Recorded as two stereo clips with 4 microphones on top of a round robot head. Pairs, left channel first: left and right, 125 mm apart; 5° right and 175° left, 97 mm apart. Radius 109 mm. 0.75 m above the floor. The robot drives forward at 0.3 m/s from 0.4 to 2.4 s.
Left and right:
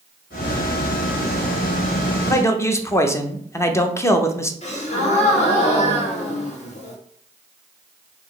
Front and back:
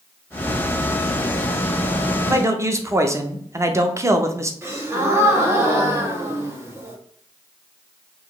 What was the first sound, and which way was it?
A man speaking, 135° left.